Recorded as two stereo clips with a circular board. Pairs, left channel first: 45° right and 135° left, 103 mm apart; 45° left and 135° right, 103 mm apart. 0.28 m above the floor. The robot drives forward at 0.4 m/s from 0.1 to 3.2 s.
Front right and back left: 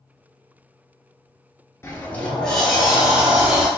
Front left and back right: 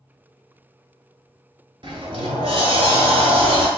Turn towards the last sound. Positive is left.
turn(degrees=-140)